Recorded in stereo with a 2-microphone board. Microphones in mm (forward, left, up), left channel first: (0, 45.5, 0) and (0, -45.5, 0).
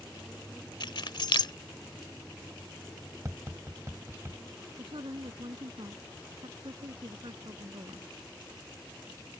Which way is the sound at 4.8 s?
75° right (ahead or behind).